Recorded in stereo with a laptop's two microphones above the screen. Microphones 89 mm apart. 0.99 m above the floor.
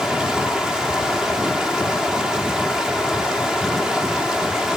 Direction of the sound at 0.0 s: 5° right (ahead or behind).